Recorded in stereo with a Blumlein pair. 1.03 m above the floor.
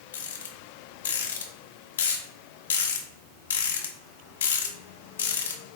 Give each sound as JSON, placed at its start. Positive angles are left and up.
{"t": 0.1, "sound": "a rattle", "azimuth_deg": 65, "distance_m": 0.8}